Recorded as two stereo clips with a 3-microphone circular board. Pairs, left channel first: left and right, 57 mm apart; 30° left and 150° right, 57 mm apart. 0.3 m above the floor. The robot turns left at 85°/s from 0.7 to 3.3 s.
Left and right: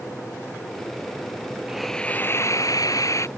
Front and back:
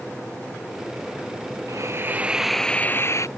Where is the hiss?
170° right; by 3.3 s 55° left.